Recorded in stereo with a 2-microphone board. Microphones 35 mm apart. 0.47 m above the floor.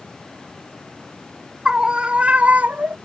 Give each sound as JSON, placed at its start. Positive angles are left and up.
{"t": 1.6, "sound": "a scream", "side_deg": -25}